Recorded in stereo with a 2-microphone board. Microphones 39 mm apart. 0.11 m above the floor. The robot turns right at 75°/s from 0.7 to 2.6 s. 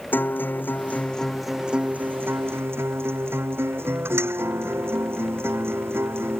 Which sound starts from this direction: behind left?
A guitar, at 0.1 s.